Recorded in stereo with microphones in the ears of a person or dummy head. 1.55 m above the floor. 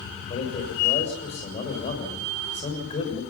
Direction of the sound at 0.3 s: 40° left (ahead or behind).